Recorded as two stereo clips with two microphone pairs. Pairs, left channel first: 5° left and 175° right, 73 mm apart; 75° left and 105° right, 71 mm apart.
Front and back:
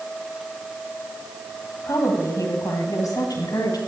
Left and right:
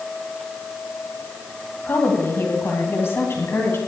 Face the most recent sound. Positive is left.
turn(degrees=25)